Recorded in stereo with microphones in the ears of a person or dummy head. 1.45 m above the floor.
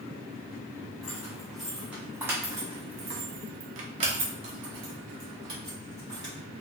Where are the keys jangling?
Centre (ahead or behind), 1.4 m; by 6.3 s 25° right (ahead or behind), 2 m.